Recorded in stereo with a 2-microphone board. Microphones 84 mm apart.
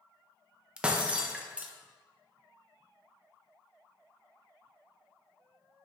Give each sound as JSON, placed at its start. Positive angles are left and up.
{"t": 0.8, "sound": "breaking glass", "side_deg": -10, "distance_m": 0.6}